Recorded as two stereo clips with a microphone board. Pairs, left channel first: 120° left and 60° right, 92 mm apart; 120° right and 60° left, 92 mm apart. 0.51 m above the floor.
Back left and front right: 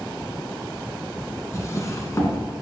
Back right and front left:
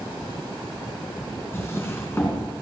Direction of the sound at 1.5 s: 175° left.